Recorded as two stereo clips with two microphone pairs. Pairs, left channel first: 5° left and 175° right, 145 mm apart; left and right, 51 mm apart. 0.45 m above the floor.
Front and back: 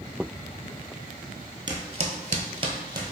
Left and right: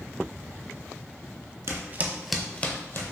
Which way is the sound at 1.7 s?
120° right.